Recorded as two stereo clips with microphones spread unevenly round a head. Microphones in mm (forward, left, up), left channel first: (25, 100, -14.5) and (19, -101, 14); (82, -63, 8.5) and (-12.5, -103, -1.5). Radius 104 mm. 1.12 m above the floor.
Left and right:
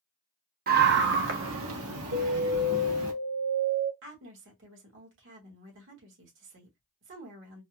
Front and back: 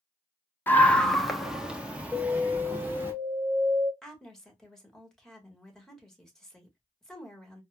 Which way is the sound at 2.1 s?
70° right.